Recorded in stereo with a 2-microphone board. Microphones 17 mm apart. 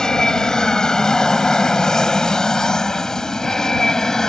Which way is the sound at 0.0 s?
40° left (ahead or behind).